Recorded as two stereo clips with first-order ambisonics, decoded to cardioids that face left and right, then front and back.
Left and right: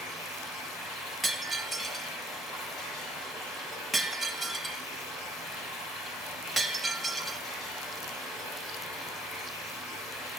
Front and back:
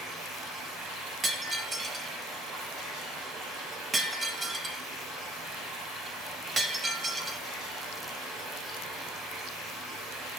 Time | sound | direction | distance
0.0 | running water | 130° left | 6 m
1.2 | breaking glass | straight behind | 0.9 m